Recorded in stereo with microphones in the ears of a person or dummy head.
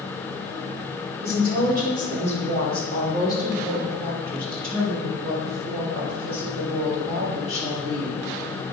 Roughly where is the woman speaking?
Right.